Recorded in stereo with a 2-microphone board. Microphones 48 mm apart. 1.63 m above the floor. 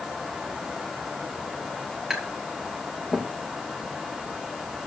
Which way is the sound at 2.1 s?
15° right (ahead or behind).